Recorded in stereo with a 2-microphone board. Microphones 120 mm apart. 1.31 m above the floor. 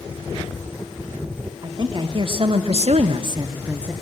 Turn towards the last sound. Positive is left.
turn(degrees=-10)  # may be behind; listen again after turning